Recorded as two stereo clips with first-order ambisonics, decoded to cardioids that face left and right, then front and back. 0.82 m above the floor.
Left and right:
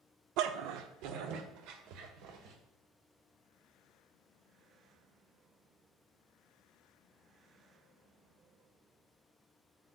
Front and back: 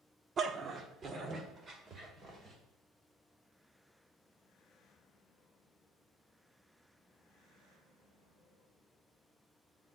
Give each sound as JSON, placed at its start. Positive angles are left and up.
{"t": 0.4, "sound": "a dog barking", "azimuth_deg": -115, "distance_m": 0.6}